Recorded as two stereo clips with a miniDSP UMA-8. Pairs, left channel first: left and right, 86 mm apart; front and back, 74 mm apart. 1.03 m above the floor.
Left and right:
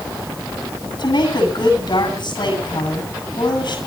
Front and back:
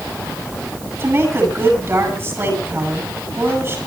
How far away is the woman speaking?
About 8.5 m.